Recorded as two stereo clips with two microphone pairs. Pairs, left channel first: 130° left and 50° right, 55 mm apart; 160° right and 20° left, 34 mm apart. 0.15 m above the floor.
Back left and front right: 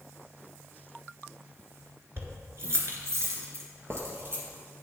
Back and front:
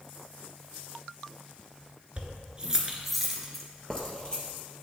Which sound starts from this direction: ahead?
Keys jangling, at 2.2 s.